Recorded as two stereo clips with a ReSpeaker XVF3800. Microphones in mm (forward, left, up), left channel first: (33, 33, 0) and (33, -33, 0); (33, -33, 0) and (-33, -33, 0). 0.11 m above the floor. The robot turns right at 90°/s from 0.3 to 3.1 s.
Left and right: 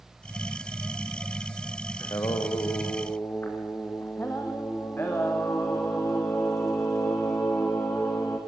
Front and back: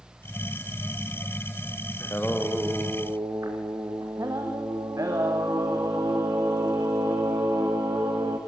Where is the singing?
45° left, 3 m; by 8.4 s 145° left, 3 m.